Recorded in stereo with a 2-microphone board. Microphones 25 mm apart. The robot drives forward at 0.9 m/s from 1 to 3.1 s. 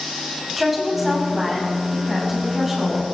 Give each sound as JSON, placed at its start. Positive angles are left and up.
{"t": 0.6, "sound": "a woman speaking", "side_deg": -5, "distance_m": 6.0}